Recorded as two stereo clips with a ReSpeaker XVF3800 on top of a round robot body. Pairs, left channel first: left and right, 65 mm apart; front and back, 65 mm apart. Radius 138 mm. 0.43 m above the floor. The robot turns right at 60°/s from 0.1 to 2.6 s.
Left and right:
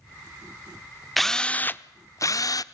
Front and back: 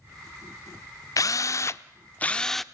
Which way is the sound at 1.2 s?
Straight ahead.